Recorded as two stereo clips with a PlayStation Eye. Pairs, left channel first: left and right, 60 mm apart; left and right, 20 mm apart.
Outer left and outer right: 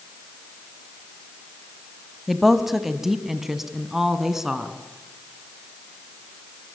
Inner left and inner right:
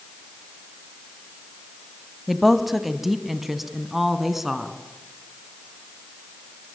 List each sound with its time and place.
2.3 s a woman speaking: 5° right (ahead or behind), 1.4 m; by 4.7 s 10° right (ahead or behind), 2.5 m